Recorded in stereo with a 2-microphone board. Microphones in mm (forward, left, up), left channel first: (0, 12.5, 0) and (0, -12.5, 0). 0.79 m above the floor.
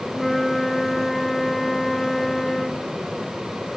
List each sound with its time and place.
0.1 s a flute: 5° left (ahead or behind), 1.1 m